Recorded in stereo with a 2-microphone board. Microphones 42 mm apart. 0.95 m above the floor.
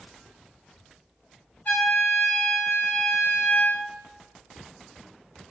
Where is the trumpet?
50° left (ahead or behind), 1.7 m.